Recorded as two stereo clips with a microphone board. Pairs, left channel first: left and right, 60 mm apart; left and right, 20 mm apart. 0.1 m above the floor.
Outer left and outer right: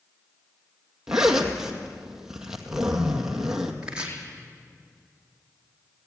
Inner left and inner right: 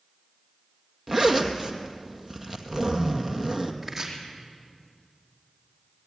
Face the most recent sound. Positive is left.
turn(degrees=-15)  # may be behind; listen again after turning